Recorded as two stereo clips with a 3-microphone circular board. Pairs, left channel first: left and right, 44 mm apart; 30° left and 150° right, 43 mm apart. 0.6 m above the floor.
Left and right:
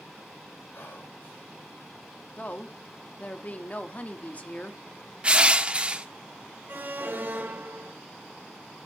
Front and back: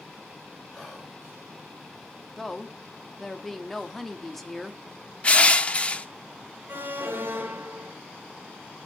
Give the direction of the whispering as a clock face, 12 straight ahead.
8 o'clock.